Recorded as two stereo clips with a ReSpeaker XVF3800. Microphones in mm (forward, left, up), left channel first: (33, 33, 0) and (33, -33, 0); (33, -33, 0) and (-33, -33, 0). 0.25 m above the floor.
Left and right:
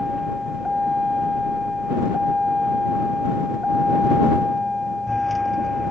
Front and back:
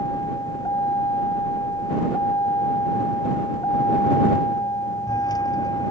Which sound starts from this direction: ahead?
A vehicle, at 0.0 s.